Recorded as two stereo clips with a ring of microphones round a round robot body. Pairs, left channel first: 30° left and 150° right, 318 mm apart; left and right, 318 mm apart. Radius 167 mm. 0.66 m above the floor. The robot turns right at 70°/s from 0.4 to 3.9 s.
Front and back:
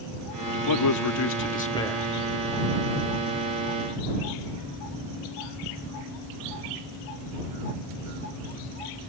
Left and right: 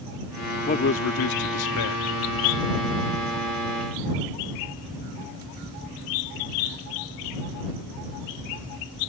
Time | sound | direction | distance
0.7 | a man speaking | 25° left | ?